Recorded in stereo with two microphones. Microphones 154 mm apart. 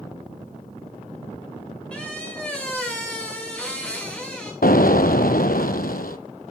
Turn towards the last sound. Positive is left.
turn(degrees=75)  # may be behind; listen again after turning